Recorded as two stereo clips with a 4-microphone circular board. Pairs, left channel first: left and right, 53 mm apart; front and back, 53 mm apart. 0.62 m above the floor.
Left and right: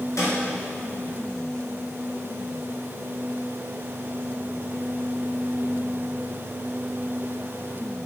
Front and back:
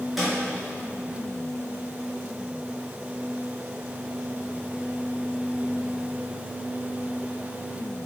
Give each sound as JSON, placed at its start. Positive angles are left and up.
{"t": 0.2, "sound": "a snare drum", "azimuth_deg": 95, "distance_m": 3.5}